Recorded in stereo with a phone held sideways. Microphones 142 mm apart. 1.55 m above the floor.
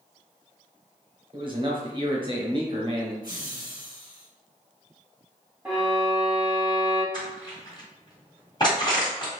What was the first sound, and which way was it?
A man speaking, 35° right (ahead or behind).